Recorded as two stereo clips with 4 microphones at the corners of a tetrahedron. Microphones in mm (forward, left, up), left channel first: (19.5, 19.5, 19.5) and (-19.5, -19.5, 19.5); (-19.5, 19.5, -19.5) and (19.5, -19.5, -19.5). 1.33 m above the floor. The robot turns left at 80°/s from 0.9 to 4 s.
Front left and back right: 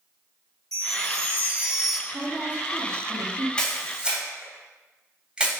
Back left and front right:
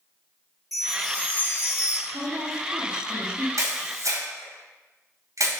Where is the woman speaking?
35° right, 3 m; by 3.5 s 145° right, 3 m.